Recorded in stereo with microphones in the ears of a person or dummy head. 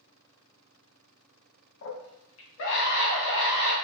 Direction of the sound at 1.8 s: 70° left (ahead or behind).